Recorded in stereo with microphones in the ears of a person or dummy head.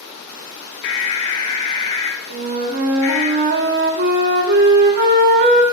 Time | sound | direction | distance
0.8 | an alarm | 60° left (ahead or behind) | 0.7 m
2.3 | a flute | 55° right (ahead or behind) | 0.5 m